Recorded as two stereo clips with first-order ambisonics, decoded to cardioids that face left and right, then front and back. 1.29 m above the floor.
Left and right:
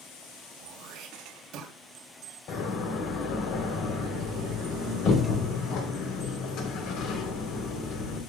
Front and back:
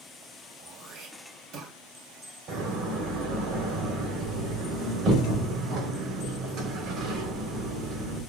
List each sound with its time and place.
0.6 s throat clearing: 135° right, 3 m
2.5 s a door slam: 135° left, 3.5 m